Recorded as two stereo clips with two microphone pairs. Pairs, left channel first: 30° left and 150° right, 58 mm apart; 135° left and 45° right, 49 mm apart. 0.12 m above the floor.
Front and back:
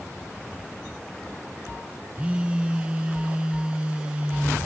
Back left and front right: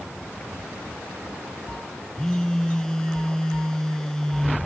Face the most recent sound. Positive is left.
turn(degrees=-175)